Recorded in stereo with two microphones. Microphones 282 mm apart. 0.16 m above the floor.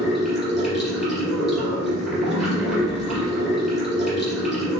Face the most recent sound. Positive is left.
turn(degrees=0)  # may be behind; listen again after turning